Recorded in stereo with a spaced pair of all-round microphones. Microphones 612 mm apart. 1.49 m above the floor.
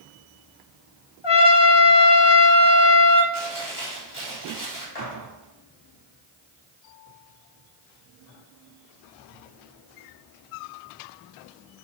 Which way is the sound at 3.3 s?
30° left (ahead or behind).